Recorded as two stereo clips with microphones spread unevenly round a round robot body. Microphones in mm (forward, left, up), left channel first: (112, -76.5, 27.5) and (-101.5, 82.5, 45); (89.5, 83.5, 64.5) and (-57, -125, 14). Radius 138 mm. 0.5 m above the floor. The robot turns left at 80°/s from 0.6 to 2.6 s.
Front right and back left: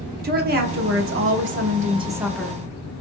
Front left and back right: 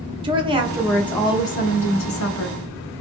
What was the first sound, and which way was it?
A woman speaking, 175° right.